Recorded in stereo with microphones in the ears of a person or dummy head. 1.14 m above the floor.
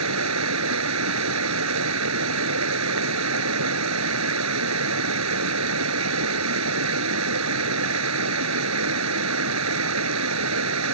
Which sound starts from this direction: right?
Running water, at 0.0 s.